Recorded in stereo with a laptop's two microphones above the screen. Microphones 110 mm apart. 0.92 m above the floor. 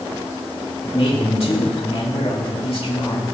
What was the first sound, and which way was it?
A man speaking, 65° left (ahead or behind).